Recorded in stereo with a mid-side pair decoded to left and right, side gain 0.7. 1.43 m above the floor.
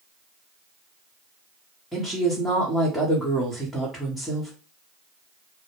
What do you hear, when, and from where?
1.9 s a woman speaking: 10° left, 1.0 m